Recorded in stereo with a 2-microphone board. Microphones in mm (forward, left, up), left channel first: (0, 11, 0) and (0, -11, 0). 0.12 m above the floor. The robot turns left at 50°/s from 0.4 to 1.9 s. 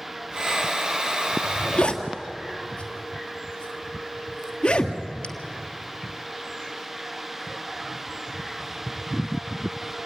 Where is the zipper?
60° left (ahead or behind), 1.5 m; by 5.3 s 45° left (ahead or behind), 1.5 m.